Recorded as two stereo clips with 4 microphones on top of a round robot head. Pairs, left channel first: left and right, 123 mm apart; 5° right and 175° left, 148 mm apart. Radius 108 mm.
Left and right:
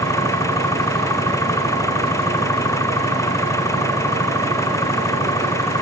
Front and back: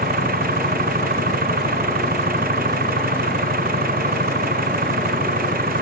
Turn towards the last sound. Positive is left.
turn(degrees=155)